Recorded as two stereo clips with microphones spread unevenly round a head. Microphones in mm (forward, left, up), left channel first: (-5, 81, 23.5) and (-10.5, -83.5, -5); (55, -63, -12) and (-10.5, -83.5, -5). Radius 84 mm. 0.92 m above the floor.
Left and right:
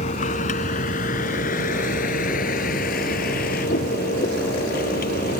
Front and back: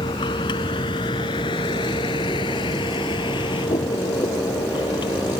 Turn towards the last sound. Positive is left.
turn(degrees=50)